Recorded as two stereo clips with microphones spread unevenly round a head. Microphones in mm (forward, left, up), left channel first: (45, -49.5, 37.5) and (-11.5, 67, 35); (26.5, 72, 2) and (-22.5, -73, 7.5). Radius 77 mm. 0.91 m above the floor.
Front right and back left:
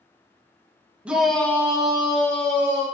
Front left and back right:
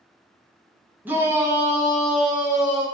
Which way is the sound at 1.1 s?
175° right.